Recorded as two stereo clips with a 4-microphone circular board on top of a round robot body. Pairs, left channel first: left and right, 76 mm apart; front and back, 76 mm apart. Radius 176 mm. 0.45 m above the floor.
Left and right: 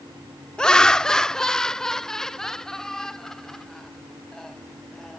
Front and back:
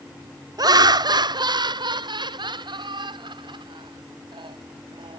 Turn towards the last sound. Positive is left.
turn(degrees=175)